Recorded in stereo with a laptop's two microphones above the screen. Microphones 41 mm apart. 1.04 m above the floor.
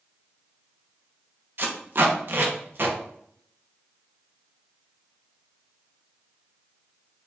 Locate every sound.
1.6 s tape being pulled: 55° right (ahead or behind), 0.8 m